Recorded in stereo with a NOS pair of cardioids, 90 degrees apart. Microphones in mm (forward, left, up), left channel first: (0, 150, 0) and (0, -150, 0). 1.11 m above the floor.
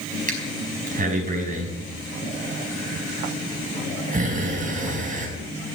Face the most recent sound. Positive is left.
turn(degrees=-25)